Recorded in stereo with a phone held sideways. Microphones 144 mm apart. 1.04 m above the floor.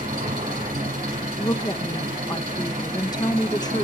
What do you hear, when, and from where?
0.0 s an engine running: 85° right, 9 m
1.4 s a woman speaking: 25° left (ahead or behind), 0.7 m